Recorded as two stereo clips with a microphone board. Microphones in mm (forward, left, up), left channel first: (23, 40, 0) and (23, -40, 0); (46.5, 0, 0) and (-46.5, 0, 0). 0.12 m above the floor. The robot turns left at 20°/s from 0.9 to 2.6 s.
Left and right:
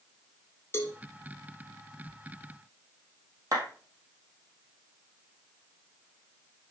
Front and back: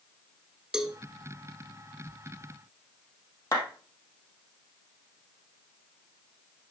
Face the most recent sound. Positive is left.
turn(degrees=-50)